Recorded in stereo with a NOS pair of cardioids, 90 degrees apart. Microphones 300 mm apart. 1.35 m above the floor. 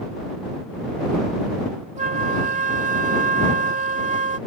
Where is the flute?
25° right.